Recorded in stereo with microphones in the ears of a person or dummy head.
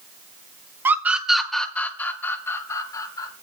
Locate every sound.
0.8 s a scream: 15° right (ahead or behind), 1.7 m; by 3.3 s 25° left (ahead or behind), 4 m